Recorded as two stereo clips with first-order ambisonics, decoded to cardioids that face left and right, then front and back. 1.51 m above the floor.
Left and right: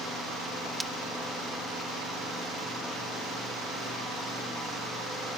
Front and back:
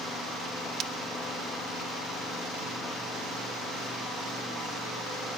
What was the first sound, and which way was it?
Breaking glass, 175° right.